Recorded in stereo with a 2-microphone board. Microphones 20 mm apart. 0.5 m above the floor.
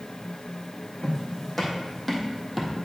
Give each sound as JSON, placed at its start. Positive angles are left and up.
{"t": 1.0, "sound": "footsteps", "side_deg": 20, "distance_m": 2.0}